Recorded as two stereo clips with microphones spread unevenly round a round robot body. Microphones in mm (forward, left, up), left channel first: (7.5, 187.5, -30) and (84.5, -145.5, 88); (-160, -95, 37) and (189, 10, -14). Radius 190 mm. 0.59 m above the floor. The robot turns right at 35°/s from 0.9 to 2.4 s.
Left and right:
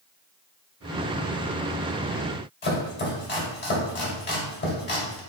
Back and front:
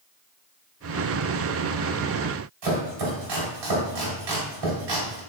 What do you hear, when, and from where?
2.6 s chopping: 45° left, 1.8 m